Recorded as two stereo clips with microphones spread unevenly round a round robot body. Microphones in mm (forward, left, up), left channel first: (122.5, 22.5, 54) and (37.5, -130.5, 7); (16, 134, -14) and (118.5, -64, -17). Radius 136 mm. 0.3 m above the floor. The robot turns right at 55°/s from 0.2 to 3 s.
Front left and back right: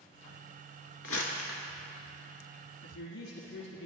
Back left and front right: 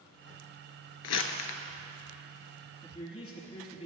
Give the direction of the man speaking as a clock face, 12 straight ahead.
10 o'clock.